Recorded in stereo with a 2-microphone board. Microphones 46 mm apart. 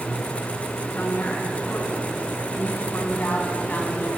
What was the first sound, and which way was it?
A woman speaking, 50° left (ahead or behind).